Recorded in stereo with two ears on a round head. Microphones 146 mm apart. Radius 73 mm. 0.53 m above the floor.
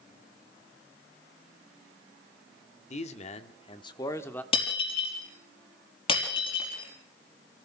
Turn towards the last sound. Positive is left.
turn(degrees=35)  # may be behind; listen again after turning